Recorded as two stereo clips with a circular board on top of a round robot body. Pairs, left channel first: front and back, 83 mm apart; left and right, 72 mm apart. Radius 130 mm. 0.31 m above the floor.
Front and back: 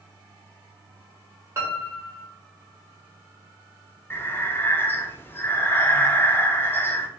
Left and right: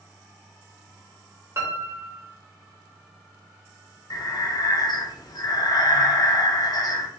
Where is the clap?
No clap in this recording.